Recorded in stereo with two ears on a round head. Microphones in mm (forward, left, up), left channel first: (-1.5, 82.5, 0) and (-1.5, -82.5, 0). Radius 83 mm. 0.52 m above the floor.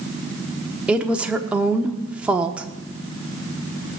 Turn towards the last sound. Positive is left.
turn(degrees=-5)  # may be behind; listen again after turning